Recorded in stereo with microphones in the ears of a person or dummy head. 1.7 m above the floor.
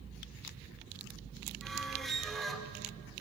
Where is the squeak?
Centre (ahead or behind), 1.4 m.